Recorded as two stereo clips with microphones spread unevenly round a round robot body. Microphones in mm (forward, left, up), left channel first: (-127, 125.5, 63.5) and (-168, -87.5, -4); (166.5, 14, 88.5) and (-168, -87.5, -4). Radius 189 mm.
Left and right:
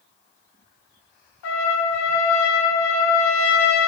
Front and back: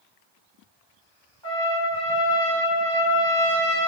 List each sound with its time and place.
1.4 s a trumpet: 105° left, 0.5 m